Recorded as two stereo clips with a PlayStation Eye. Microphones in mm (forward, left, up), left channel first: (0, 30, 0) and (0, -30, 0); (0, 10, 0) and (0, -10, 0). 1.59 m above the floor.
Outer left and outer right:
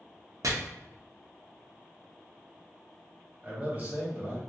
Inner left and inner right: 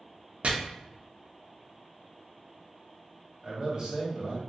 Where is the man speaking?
25° right (ahead or behind), 1.5 m.